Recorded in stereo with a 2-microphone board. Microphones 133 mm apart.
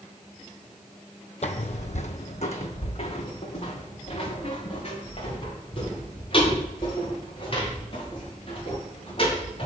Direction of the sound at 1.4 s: 55° left (ahead or behind).